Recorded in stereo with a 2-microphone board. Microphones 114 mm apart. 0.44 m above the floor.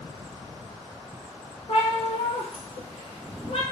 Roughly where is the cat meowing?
Left.